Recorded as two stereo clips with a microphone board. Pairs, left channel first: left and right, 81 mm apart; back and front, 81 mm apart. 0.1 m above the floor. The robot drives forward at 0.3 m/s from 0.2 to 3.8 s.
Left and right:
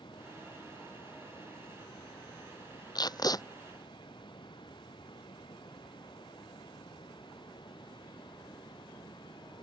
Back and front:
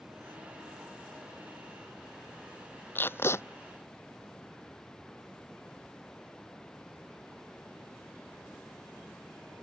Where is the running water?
85° left; by 9.6 s 95° left.